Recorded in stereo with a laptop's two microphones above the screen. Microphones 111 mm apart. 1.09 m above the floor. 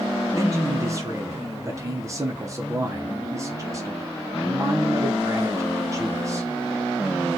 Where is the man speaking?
30° right (ahead or behind), 0.7 m.